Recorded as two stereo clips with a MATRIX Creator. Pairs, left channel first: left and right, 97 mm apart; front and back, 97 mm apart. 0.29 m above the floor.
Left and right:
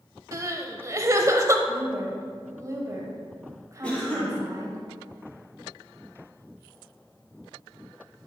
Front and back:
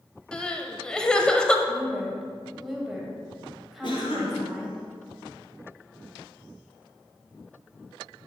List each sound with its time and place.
0.3 s crying: 75° right, 0.6 m
1.7 s a woman speaking: 95° right, 1.6 m
3.8 s a cough: 10° left, 2 m